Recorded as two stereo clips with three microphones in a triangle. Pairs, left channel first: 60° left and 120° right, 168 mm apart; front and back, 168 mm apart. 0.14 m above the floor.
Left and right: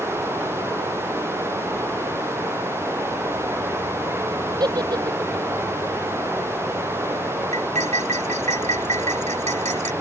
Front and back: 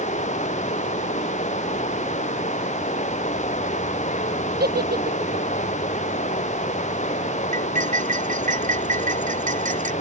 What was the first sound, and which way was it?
Running water, 45° right.